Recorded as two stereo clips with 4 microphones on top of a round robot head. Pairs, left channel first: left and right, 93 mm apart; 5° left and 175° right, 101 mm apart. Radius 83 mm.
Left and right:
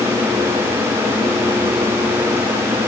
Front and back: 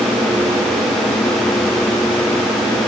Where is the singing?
I don't hear singing.